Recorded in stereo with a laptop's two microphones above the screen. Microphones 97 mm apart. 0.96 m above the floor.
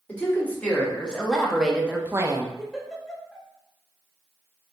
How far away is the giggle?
About 0.8 m.